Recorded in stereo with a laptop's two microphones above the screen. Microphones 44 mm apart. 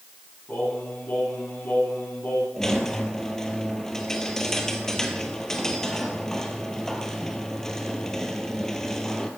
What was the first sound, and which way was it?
Singing, 50° left (ahead or behind).